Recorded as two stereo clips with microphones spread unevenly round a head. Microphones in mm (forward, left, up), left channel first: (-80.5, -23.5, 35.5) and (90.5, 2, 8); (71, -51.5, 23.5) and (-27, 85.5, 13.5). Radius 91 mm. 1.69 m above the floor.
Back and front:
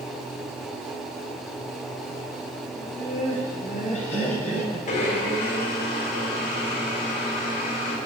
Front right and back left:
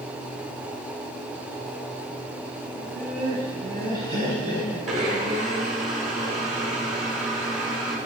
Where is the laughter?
105° left, 3.5 m; by 4.8 s 110° left, 6.5 m.